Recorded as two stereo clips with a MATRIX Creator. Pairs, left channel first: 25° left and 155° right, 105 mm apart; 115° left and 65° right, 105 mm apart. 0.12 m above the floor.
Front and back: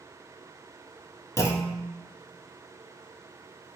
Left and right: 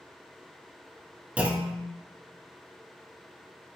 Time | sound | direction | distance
1.4 | a clunk | straight ahead | 0.5 m